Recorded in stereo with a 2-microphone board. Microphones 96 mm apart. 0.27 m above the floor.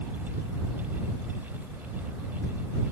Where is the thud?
I don't hear a thud.